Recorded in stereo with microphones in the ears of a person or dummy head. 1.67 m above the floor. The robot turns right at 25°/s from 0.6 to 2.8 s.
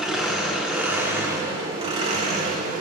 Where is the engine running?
175° right, 1.1 m; by 2.8 s 120° right, 1.1 m.